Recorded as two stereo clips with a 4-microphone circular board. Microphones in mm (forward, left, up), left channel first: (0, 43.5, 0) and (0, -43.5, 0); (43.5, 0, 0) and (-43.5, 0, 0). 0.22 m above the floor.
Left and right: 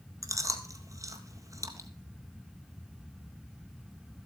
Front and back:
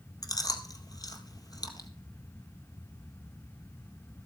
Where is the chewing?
40° right, 1.6 m.